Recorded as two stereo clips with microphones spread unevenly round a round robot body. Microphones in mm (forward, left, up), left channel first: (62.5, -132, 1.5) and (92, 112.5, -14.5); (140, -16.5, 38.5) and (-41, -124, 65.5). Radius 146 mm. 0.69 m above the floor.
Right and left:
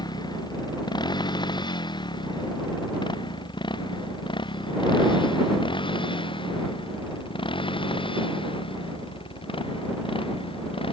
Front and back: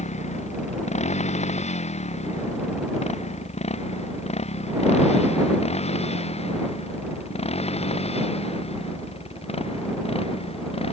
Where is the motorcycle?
25° right; by 10.9 s 30° right.